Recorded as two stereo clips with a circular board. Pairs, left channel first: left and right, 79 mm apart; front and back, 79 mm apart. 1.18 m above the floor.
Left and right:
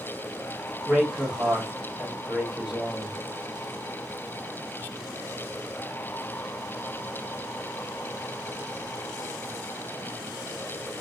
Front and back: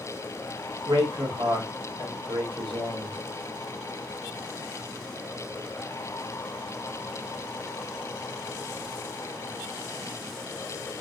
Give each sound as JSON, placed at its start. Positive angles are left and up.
{"t": 0.9, "sound": "a man speaking", "azimuth_deg": -165, "distance_m": 1.2}